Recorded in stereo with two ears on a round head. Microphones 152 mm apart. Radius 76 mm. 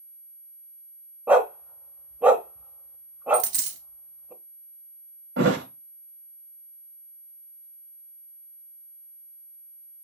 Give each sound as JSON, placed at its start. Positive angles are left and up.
{"t": 1.3, "sound": "a dog barking", "side_deg": -10, "distance_m": 0.6}
{"t": 3.3, "sound": "a dropped coin", "side_deg": -75, "distance_m": 1.7}
{"t": 5.4, "sound": "a thud", "side_deg": -75, "distance_m": 1.2}